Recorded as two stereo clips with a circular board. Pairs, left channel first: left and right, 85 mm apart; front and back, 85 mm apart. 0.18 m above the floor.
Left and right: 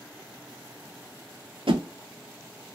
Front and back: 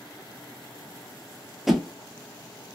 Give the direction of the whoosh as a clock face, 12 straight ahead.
3 o'clock.